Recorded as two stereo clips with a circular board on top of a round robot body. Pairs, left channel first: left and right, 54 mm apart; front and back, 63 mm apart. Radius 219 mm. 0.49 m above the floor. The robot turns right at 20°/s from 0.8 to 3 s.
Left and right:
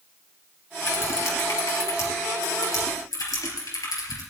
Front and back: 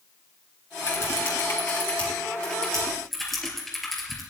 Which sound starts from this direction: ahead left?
Typing on a keyboard, at 0.8 s.